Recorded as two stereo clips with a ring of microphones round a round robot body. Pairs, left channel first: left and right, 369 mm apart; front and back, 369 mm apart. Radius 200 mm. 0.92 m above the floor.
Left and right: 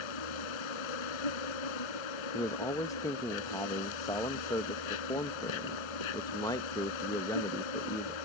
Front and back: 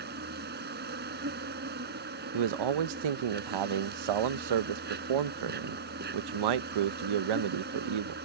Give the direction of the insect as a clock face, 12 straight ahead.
8 o'clock.